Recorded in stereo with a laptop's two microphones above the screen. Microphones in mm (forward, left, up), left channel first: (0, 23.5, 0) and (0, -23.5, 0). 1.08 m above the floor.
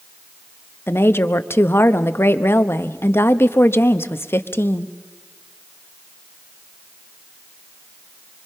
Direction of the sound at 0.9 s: 55° left (ahead or behind).